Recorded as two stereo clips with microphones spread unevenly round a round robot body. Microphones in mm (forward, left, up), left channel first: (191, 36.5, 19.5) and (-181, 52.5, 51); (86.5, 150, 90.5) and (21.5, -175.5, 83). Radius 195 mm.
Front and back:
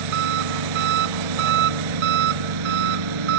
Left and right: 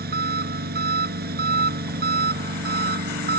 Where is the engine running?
165° right.